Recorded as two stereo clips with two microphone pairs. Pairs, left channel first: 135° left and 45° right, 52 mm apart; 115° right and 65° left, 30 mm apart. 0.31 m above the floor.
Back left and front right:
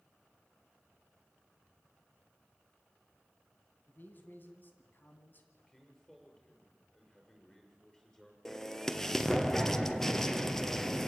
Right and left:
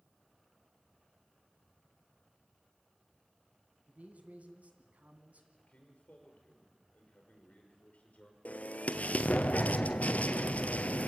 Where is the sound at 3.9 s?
90° left, 2.5 m.